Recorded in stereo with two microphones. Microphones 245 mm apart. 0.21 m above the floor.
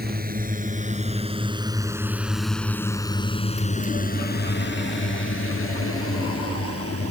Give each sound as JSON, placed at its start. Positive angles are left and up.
{"t": 0.0, "sound": "a drone", "side_deg": -40}